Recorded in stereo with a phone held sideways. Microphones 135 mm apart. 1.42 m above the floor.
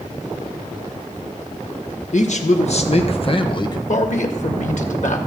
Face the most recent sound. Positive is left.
turn(degrees=65)  # may be behind; listen again after turning